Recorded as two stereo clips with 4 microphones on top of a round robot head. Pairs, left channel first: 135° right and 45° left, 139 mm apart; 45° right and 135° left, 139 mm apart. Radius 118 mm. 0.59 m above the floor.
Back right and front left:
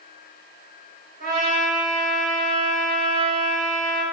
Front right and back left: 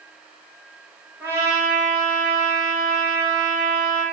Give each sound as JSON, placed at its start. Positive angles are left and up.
{"t": 1.2, "sound": "a trumpet", "azimuth_deg": 60, "distance_m": 0.9}